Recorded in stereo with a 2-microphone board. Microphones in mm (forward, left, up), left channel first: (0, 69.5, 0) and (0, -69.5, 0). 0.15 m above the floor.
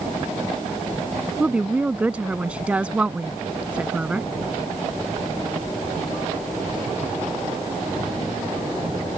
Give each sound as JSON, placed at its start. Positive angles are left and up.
{"t": 1.4, "sound": "a woman speaking", "side_deg": -10}